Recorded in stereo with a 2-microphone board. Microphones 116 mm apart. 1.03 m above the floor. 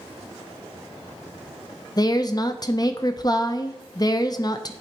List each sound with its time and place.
2.0 s a woman speaking: 35° left (ahead or behind), 0.5 m